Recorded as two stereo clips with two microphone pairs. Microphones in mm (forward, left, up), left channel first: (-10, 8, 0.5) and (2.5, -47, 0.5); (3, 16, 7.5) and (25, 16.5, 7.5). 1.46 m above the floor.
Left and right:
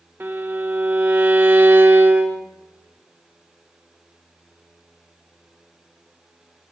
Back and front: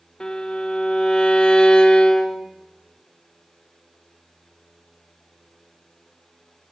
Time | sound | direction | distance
0.2 | a violin | 125° right | 1.1 m